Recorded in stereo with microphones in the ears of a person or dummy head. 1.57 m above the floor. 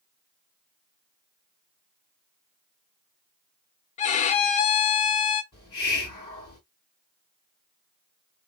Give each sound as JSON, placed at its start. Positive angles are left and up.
{"t": 4.0, "sound": "a violin", "side_deg": 35, "distance_m": 0.6}
{"t": 5.5, "sound": "a hiss", "side_deg": 20, "distance_m": 2.5}